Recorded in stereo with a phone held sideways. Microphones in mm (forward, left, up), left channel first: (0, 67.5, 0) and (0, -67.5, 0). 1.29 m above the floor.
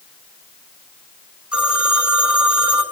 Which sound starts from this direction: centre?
A phone ringing, at 1.5 s.